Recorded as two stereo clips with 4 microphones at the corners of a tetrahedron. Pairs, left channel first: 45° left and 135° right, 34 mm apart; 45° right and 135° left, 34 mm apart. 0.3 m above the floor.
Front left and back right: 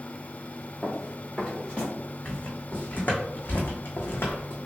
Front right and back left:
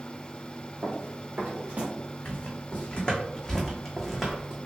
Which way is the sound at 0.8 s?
130° left.